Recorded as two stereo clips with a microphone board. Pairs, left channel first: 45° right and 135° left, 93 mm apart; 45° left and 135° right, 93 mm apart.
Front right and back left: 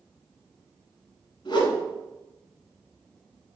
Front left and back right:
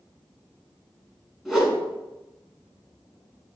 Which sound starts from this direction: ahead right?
A whoosh, at 1.4 s.